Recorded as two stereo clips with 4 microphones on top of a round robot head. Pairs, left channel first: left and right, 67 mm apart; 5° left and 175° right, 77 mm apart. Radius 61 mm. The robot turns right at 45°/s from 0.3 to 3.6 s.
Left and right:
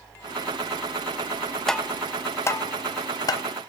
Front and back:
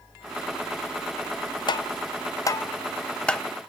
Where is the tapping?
10° left, 0.8 m; by 3.4 s 90° left, 0.8 m.